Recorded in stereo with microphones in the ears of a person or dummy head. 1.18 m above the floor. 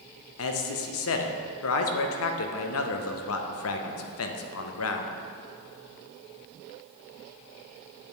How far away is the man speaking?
About 0.7 m.